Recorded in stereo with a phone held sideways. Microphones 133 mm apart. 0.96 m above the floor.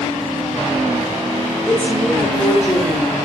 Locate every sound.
1.7 s a woman speaking: 10° left (ahead or behind), 4 m